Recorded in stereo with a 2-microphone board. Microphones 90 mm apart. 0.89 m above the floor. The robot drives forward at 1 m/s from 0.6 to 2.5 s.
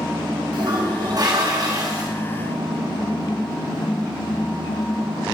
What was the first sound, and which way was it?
A toilet flushing, 60° right (ahead or behind).